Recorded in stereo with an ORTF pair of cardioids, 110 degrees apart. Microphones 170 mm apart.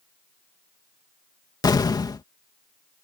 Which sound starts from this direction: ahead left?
An explosion, at 1.6 s.